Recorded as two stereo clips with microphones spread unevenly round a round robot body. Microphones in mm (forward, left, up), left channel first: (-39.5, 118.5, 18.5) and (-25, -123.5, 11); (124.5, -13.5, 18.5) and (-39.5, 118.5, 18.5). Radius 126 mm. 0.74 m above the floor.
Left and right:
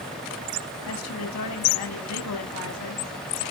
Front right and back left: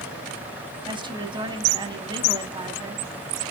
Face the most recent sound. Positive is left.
turn(degrees=75)